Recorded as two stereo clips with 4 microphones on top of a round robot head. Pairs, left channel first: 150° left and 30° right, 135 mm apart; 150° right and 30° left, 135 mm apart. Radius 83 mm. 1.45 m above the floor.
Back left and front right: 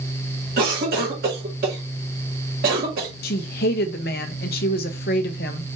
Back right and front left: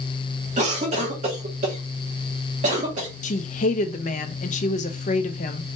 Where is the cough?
10° right, 1.9 m.